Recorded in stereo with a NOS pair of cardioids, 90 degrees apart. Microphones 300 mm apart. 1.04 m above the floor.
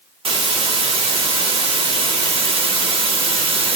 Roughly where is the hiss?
Ahead.